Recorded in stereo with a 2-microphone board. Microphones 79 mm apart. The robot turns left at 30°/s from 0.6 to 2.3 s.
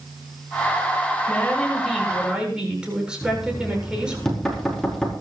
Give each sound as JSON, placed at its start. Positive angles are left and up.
{"t": 1.3, "sound": "a woman speaking", "azimuth_deg": 20, "distance_m": 7.5}
{"t": 3.2, "sound": "knocking", "side_deg": 5, "distance_m": 5.0}